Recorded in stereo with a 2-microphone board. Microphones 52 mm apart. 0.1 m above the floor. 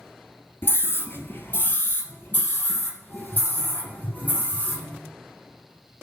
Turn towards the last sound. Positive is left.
turn(degrees=30)  # may be behind; listen again after turning